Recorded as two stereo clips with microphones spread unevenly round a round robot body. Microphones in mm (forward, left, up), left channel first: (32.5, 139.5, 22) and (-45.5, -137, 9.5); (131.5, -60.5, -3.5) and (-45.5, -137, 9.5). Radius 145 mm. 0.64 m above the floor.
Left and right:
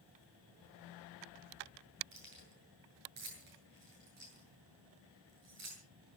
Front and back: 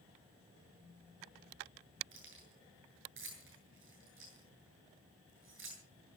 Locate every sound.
2.1 s keys jangling: 145° right, 8 m